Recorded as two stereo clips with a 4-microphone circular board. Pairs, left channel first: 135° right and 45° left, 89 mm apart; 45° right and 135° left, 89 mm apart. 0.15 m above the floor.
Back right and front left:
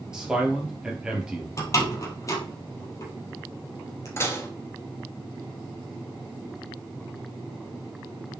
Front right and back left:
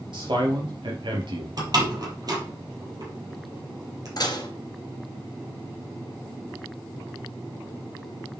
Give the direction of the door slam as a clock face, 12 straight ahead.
6 o'clock.